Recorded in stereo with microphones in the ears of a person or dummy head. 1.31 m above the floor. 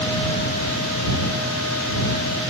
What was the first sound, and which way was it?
Only background noise.